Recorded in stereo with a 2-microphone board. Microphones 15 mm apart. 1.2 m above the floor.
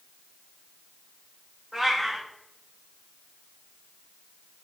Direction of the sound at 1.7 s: 30° right (ahead or behind).